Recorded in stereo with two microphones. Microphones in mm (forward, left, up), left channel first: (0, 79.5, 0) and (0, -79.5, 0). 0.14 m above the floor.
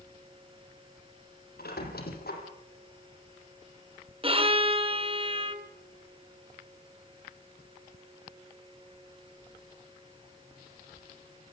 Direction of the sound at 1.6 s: 75° left (ahead or behind).